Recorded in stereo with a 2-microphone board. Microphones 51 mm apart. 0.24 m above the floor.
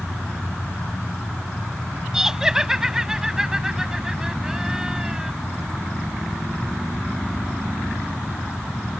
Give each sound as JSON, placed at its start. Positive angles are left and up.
{"t": 2.1, "sound": "laughter", "side_deg": -10}